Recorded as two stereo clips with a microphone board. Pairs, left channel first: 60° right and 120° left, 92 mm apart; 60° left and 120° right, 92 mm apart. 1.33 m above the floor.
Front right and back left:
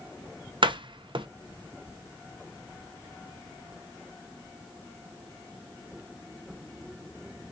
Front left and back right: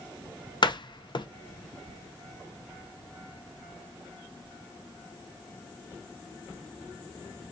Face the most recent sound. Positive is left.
turn(degrees=95)